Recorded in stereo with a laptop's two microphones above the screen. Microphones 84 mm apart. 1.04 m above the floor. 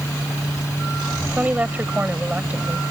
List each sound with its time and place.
0.0 s a fan: 35° left (ahead or behind)
1.3 s a woman speaking: 15° right (ahead or behind)